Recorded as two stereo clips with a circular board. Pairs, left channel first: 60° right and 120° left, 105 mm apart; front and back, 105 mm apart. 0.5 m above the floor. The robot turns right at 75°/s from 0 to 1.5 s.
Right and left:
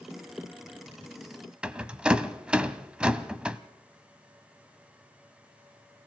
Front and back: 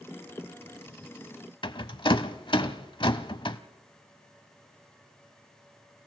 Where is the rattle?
40° left, 0.8 m.